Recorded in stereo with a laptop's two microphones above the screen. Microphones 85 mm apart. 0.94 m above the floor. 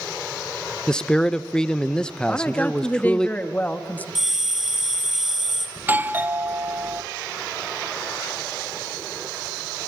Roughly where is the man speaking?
Centre.